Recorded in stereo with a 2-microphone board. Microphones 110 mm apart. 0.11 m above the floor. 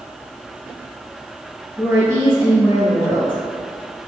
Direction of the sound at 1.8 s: 25° right (ahead or behind).